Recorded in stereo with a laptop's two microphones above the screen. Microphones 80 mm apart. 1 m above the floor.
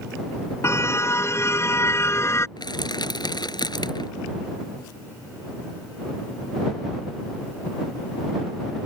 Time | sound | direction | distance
0.6 | a car horn | 35° left (ahead or behind) | ?
2.6 | crushing | 70° left (ahead or behind) | ?